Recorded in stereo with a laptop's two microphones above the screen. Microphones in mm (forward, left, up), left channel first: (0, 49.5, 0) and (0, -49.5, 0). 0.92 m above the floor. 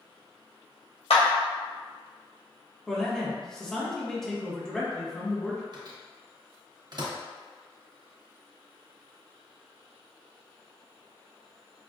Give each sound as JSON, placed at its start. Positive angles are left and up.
{"t": 1.1, "sound": "a clap", "side_deg": 80, "distance_m": 1.0}
{"t": 2.9, "sound": "a man speaking", "side_deg": 5, "distance_m": 1.4}
{"t": 5.7, "sound": "a microwave", "side_deg": -45, "distance_m": 0.8}